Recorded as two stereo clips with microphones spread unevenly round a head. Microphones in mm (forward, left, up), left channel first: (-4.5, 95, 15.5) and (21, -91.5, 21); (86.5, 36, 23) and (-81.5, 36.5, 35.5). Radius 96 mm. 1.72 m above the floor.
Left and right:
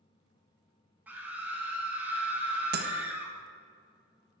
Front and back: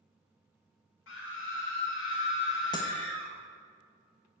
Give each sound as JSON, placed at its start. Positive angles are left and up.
{"t": 1.1, "sound": "a scream", "azimuth_deg": 0, "distance_m": 3.5}
{"t": 2.7, "sound": "breaking glass", "azimuth_deg": -70, "distance_m": 1.3}